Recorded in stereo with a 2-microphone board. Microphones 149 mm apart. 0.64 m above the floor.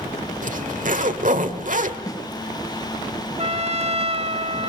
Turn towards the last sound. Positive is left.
turn(degrees=-50)  # may be behind; listen again after turning